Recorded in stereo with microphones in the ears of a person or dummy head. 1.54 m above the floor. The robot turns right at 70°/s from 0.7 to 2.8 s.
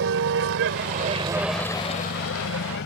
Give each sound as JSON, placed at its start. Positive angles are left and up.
{"t": 0.0, "sound": "a vehicle", "side_deg": -70}